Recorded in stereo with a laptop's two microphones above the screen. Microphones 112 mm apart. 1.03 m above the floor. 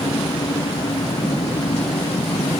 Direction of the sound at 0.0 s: 60° left (ahead or behind).